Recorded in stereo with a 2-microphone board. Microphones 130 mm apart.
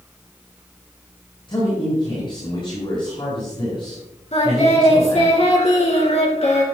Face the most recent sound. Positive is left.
turn(degrees=55)  # may be behind; listen again after turning